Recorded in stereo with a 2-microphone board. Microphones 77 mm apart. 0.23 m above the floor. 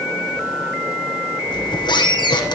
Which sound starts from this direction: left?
A squeak, at 1.5 s.